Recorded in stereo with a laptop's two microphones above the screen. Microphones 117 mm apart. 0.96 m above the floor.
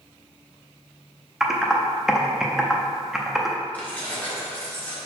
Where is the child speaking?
No child speaking in this recording.